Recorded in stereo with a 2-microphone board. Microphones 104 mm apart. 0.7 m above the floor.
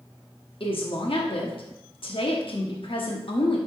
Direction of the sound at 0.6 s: 60° left (ahead or behind).